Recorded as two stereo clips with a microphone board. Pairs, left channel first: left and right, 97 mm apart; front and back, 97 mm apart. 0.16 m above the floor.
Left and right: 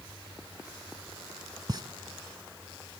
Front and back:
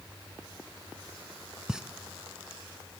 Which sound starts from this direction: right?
A pop, at 1.7 s.